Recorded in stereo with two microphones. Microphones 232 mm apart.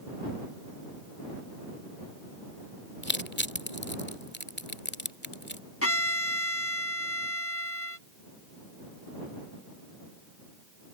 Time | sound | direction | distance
3.0 | crushing | 50° left (ahead or behind) | ?
5.8 | a violin | 80° left | ?